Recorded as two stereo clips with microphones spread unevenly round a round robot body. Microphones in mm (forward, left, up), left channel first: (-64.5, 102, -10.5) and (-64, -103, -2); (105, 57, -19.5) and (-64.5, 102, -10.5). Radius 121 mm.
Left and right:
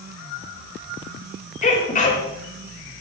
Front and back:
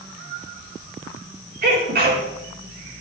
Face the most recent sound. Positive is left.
turn(degrees=140)